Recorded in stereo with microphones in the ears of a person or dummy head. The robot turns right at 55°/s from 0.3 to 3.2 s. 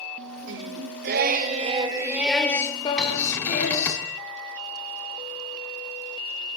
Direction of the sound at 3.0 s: 5° left (ahead or behind).